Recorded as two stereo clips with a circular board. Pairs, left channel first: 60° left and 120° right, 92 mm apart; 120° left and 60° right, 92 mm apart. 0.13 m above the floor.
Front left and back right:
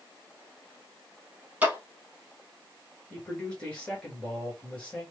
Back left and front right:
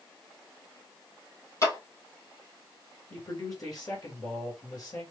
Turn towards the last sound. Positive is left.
turn(degrees=135)